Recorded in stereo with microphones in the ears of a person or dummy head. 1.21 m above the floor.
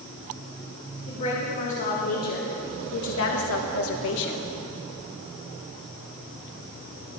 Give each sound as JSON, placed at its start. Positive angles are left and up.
{"t": 1.1, "sound": "a woman speaking", "side_deg": 35, "distance_m": 3.0}